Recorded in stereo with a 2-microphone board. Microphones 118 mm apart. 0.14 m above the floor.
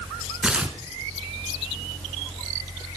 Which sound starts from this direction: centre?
Tearing paper, at 0.4 s.